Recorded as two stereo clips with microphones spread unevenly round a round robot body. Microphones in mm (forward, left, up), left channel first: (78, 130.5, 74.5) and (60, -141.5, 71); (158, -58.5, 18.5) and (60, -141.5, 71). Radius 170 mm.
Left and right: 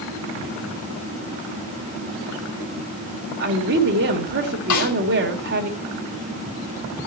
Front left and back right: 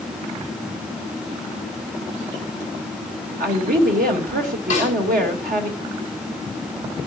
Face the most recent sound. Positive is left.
turn(degrees=105)